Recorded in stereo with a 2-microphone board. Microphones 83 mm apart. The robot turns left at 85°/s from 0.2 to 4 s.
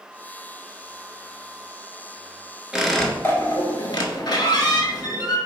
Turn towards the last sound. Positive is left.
turn(degrees=80)